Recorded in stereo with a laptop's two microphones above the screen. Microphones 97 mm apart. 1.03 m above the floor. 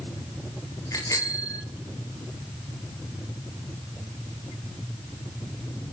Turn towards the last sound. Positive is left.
turn(degrees=35)  # may be behind; listen again after turning